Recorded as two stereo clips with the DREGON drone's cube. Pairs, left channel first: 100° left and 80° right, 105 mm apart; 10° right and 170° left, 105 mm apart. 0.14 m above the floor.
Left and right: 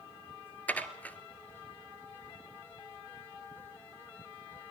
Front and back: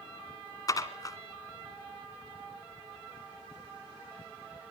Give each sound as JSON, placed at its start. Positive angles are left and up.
{"t": 0.7, "sound": "dishes clattering", "azimuth_deg": 30, "distance_m": 1.2}